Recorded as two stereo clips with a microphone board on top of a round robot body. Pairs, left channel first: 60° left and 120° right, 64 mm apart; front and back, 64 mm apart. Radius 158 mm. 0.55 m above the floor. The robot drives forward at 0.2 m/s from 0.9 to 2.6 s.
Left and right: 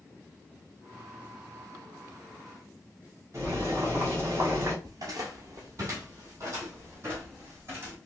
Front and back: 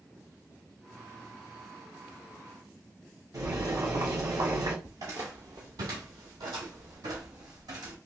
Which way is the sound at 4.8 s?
150° right.